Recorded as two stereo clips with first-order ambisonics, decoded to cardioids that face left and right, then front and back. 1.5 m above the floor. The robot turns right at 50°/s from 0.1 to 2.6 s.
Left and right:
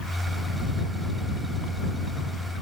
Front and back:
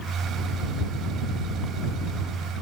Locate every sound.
Only background noise.